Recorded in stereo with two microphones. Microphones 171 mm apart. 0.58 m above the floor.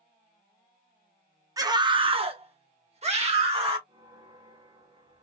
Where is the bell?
30° right (ahead or behind), 1.6 m.